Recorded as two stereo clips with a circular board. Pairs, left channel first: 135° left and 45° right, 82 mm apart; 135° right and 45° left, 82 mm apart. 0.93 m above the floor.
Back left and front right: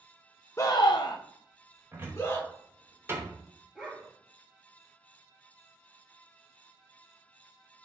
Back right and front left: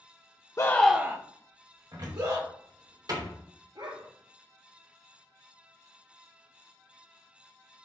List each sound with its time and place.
0.6 s a scream: 175° right, 0.6 m; by 2.5 s 75° left, 2.5 m
1.9 s a cupboard door: 15° left, 3 m
3.8 s a dog barking: 45° left, 4 m